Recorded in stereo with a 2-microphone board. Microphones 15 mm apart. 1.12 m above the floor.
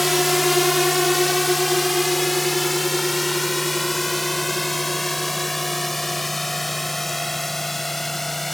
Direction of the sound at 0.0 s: 10° right (ahead or behind).